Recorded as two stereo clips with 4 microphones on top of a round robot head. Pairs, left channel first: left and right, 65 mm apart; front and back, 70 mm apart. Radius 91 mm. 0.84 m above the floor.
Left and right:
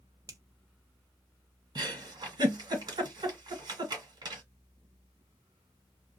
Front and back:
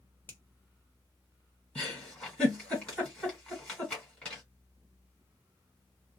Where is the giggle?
80° right, 1.6 m.